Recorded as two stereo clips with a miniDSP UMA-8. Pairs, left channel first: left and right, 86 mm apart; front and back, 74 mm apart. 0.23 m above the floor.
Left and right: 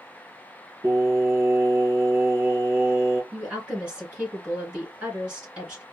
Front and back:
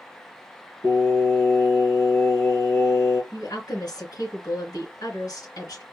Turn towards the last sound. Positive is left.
turn(degrees=-15)